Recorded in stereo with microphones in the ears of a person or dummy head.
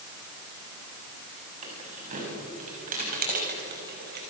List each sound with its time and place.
1.6 s keys jangling: 40° right (ahead or behind), 7 m; by 4.2 s 55° right (ahead or behind), 5 m